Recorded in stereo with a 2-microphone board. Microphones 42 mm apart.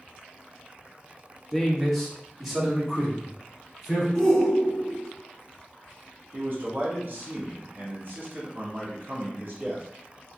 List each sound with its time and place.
1.5 s a man speaking: 5° left (ahead or behind), 0.8 m; by 4.0 s 10° right (ahead or behind), 2.5 m
4.2 s a shout: 15° left (ahead or behind), 0.8 m
6.3 s a man speaking: 50° right (ahead or behind), 1.4 m